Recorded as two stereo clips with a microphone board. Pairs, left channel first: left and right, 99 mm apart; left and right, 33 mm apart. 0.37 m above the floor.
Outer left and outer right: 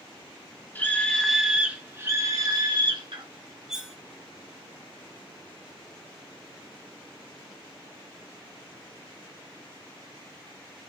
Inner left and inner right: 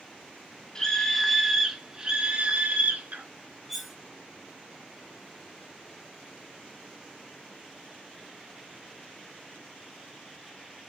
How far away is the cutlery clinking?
About 1.6 m.